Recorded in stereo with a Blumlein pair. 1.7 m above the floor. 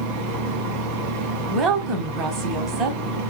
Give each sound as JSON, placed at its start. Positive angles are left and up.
{"t": 0.0, "sound": "a fan", "azimuth_deg": -40, "distance_m": 0.8}
{"t": 1.5, "sound": "a woman speaking", "azimuth_deg": -25, "distance_m": 1.3}